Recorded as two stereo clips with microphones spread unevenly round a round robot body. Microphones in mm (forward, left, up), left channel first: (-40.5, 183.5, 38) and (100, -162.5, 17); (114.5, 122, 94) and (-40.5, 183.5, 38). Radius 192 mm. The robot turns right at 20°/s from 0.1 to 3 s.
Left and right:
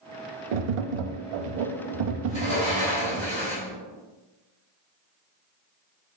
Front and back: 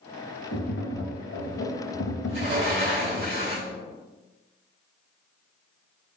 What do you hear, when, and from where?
0.5 s tapping: 55° right, 0.5 m; by 3.3 s 5° right, 0.5 m
2.3 s a sliding door: straight behind, 1.8 m; by 3.7 s 165° right, 1.8 m